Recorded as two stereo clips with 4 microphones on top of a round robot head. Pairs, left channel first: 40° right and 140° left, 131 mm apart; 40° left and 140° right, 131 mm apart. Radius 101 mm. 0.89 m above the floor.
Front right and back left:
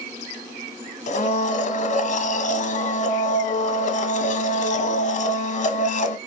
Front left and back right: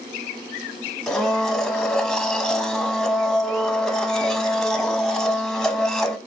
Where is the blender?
50° right, 1.3 m.